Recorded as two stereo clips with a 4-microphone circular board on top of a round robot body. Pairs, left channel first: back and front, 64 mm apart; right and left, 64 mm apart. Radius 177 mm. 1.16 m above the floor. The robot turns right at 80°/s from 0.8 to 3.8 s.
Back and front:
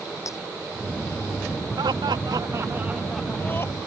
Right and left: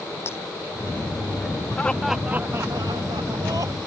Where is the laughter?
20° right; by 3.8 s 135° left.